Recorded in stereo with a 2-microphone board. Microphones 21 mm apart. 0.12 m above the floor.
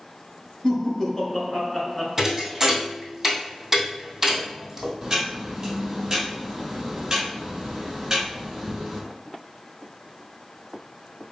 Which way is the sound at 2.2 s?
15° right (ahead or behind).